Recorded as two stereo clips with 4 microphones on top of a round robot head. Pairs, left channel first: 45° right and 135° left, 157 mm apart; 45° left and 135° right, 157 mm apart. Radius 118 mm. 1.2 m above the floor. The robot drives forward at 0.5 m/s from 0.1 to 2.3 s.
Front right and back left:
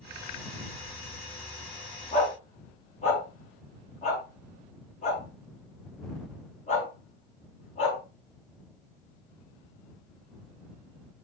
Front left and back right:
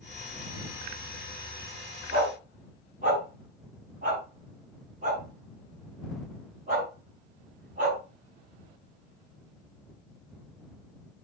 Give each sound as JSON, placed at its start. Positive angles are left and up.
{"t": 2.1, "sound": "a dog barking", "azimuth_deg": -90, "distance_m": 5.0}